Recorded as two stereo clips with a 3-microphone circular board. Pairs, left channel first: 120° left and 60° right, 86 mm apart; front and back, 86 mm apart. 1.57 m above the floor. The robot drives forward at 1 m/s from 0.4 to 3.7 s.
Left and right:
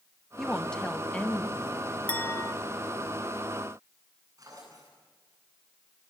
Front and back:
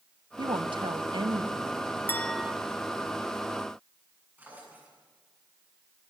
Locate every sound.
0.4 s a woman speaking: 155° right, 1.0 m; by 2.0 s 170° right, 2.5 m
2.1 s a clink: 50° left, 0.6 m; by 2.5 s 120° left, 0.6 m
4.4 s a drawer: 110° right, 9 m